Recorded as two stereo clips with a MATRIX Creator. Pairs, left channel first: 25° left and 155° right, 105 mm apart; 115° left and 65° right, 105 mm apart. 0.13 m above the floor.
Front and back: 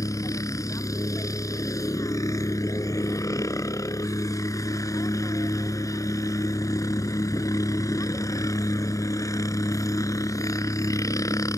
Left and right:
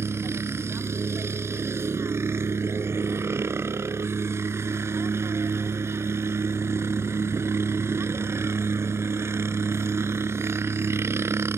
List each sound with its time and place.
0.0 s a helicopter: 15° right